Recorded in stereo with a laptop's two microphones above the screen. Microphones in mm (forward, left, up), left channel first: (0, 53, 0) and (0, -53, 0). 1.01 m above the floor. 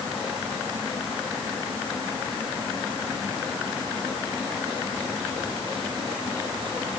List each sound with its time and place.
Only background noise.